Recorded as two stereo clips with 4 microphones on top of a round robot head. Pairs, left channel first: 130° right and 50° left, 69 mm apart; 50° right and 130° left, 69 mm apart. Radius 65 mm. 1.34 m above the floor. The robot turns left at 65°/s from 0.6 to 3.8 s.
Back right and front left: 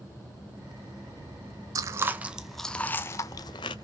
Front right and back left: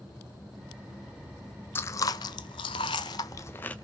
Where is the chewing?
10° left, 0.6 m; by 3.8 s 120° right, 0.6 m.